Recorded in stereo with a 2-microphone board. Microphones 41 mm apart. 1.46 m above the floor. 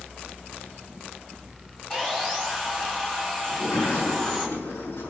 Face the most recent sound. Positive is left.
turn(degrees=80)